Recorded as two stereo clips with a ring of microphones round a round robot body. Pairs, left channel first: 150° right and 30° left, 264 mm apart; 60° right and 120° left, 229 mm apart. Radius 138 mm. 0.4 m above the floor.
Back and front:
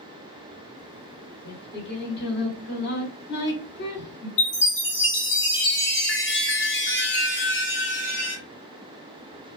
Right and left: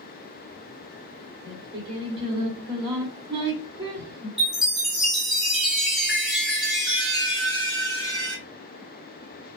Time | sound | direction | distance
1.4 | singing | straight behind | 1.9 m
4.4 | a chime | 150° right | 1.9 m